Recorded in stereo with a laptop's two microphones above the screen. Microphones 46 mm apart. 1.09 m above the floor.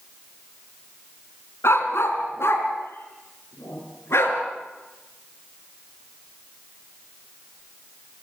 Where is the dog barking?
75° left (ahead or behind), 3 m; by 4.4 s 80° left, 5 m.